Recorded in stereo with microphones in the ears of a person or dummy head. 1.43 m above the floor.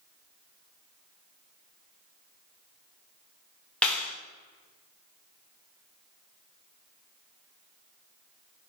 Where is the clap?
10° left (ahead or behind), 0.6 m.